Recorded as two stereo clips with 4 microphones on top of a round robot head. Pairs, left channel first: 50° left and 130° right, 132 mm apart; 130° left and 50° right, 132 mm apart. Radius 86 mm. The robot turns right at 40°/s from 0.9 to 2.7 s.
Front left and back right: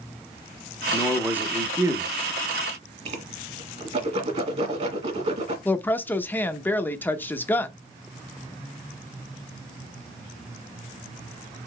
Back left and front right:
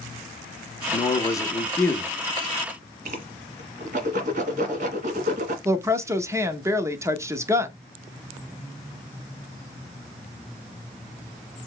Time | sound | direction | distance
0.9 | a man speaking | 150° left | 0.8 m
3.0 | a whoosh | 85° right | 1.4 m
5.7 | a woman speaking | 10° right | 0.8 m